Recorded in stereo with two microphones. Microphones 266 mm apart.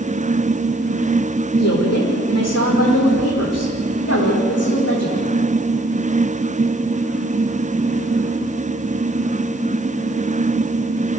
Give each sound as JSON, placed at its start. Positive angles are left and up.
{"t": 1.6, "sound": "a woman speaking", "side_deg": 70, "distance_m": 8.5}